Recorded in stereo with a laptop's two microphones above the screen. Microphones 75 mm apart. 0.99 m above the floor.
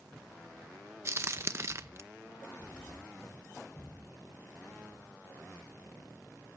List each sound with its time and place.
1.1 s a crack: 40° right (ahead or behind), 0.7 m